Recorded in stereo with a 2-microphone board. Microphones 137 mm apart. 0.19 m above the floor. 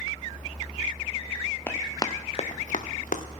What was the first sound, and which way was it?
Running footsteps, 15° left (ahead or behind).